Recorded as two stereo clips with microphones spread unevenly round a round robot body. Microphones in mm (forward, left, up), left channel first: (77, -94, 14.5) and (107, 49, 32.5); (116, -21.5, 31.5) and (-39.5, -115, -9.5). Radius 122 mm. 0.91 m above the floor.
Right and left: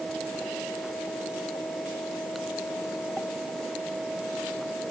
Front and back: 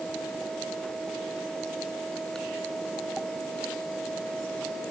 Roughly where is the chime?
No chime in this recording.